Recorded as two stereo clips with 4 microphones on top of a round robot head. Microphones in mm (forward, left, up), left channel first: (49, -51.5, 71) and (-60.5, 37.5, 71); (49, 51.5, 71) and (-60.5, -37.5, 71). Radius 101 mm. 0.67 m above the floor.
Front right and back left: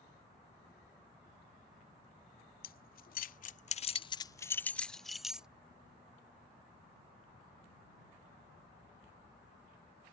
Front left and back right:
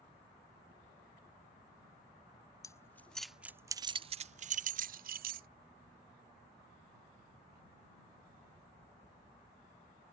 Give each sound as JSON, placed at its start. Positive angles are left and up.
{"t": 2.6, "sound": "keys jangling", "azimuth_deg": -30}